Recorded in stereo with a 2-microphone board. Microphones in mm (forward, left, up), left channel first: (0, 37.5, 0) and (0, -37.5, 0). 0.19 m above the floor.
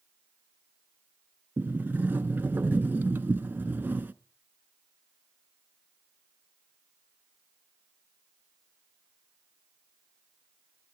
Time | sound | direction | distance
1.6 | a sliding door | 25° right (ahead or behind) | 0.6 m